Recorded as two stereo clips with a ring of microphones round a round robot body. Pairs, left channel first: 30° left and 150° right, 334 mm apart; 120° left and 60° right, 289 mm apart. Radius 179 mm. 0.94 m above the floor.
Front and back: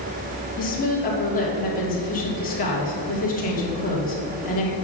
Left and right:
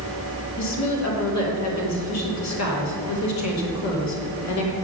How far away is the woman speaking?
About 3 m.